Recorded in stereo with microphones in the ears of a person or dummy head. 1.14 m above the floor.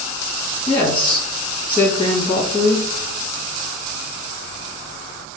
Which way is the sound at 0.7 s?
5° left (ahead or behind).